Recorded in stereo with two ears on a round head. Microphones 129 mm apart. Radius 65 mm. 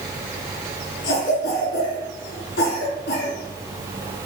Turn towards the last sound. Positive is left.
turn(degrees=80)